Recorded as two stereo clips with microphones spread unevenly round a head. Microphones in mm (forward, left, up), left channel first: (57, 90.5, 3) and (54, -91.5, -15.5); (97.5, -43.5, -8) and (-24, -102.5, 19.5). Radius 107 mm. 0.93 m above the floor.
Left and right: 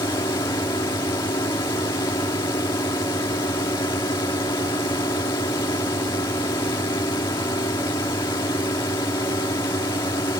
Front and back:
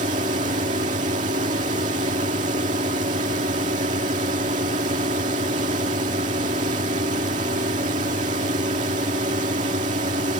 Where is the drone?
160° left.